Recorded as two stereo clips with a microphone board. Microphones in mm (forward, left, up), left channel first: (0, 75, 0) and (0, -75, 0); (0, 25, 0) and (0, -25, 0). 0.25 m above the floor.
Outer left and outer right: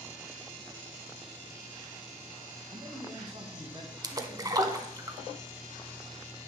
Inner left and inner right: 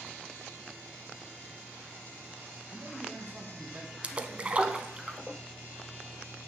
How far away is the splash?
About 0.6 m.